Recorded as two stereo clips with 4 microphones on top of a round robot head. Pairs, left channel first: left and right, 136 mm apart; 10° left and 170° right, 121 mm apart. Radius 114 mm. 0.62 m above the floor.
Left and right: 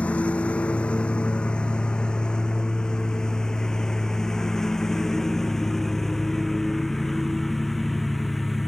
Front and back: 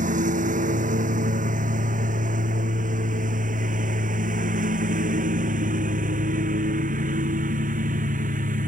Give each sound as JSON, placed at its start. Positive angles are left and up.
{"t": 0.0, "sound": "a lawn mower", "azimuth_deg": 175}